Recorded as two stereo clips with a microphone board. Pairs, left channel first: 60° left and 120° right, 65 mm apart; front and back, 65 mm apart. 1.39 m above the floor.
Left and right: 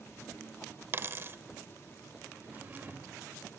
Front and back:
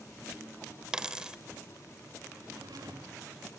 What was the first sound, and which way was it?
A dropped coin, 110° right.